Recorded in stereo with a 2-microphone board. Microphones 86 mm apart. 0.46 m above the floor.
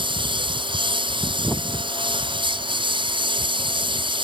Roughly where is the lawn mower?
Right.